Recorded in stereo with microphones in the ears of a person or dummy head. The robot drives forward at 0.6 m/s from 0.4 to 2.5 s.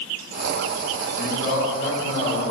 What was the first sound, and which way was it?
A man speaking, 75° left (ahead or behind).